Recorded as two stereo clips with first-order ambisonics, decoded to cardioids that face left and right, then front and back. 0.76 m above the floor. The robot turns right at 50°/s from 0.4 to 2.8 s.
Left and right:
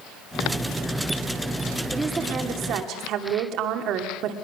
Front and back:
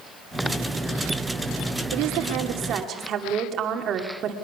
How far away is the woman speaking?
About 2.5 m.